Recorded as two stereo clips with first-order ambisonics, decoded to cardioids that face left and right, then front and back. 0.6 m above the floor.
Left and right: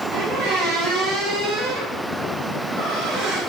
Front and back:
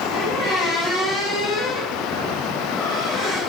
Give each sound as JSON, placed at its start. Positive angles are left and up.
{"t": 0.1, "sound": "a squeak", "azimuth_deg": -65, "distance_m": 4.5}